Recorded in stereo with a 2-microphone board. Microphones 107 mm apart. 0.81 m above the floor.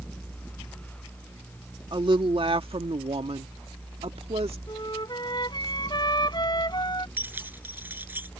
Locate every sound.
1.9 s a woman speaking: 45° right (ahead or behind); by 4.6 s 65° right (ahead or behind)
4.7 s a flute: 40° left (ahead or behind)
7.2 s keys jangling: 20° right (ahead or behind)